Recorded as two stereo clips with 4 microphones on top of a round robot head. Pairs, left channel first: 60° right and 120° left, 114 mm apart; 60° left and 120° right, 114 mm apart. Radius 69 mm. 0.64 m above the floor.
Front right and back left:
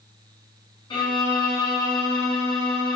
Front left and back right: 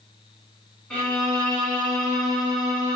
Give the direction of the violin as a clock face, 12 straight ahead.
1 o'clock.